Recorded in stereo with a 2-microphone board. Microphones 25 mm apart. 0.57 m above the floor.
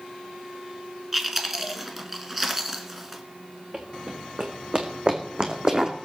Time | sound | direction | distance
1.1 | chewing | 10° right (ahead or behind) | 1.5 m
3.7 | running footsteps | 50° right (ahead or behind) | 2.5 m